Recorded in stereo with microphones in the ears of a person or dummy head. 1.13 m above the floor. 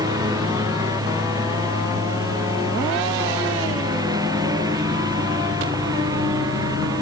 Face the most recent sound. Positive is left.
turn(degrees=-20)  # may be behind; listen again after turning